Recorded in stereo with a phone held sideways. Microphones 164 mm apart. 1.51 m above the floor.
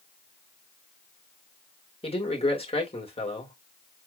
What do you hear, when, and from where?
2.0 s a man speaking: 40° left (ahead or behind), 2.5 m